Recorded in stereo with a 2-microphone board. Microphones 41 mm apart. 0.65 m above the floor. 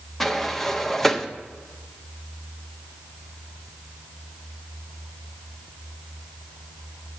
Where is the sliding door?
5° left (ahead or behind), 0.6 m.